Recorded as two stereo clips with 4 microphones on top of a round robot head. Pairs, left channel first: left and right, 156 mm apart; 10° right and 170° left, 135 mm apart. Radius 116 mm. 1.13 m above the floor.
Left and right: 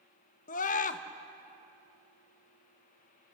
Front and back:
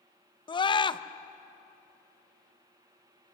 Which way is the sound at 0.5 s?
45° left.